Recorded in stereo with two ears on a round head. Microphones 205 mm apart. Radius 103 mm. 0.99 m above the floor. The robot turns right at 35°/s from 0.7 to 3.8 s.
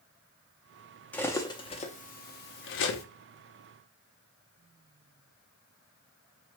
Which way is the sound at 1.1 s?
5° left (ahead or behind).